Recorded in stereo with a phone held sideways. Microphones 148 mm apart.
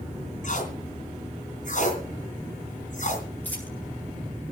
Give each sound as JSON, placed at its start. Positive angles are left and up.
{"t": 0.4, "sound": "tape being pulled", "side_deg": 60, "distance_m": 3.0}
{"t": 3.4, "sound": "a dropped coin", "side_deg": 15, "distance_m": 8.0}